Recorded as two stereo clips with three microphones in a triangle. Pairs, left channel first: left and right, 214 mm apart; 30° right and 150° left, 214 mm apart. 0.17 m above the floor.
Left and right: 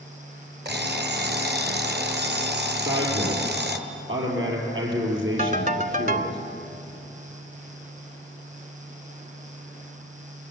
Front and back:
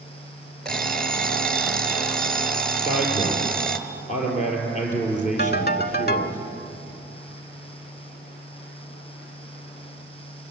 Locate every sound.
0.7 s an alarm clock: 115° right, 1.4 m
2.8 s a man speaking: 85° right, 5 m
5.4 s a ringtone: 55° right, 0.8 m